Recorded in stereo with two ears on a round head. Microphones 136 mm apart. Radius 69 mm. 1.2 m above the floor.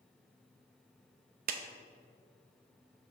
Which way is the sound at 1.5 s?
60° right (ahead or behind).